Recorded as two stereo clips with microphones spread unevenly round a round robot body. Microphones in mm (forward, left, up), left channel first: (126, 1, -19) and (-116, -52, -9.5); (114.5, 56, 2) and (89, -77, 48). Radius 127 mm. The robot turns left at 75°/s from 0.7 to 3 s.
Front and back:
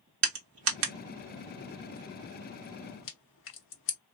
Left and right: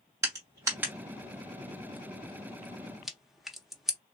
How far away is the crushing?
About 1.0 m.